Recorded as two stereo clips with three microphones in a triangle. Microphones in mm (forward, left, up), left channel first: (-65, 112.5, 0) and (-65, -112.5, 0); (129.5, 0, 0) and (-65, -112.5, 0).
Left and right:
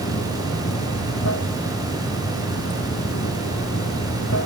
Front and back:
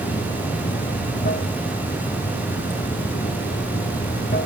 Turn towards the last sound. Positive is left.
turn(degrees=75)